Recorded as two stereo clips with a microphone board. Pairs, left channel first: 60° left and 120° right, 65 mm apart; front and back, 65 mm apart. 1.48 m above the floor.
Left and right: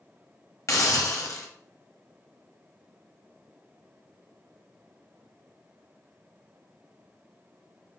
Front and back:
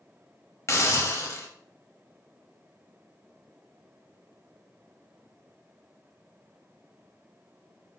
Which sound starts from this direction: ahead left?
A hiss, at 0.7 s.